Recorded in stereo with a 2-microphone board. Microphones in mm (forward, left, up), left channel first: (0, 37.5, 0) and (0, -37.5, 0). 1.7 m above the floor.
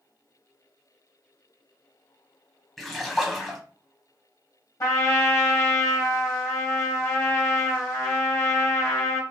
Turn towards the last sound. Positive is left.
turn(degrees=40)  # may be behind; listen again after turning